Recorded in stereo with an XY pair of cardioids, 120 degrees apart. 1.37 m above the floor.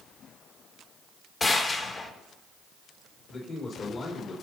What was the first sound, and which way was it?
A gunshot, 35° left.